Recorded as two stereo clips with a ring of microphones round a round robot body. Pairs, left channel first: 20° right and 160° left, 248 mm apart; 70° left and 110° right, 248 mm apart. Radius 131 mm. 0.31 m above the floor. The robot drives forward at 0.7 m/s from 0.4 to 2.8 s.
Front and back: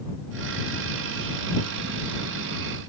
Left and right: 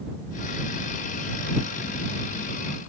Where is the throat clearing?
I don't hear throat clearing.